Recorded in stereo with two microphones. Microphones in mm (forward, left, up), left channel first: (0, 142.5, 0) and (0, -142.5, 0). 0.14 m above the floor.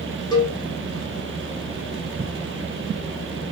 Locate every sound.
0.3 s a cowbell: 15° left (ahead or behind), 0.7 m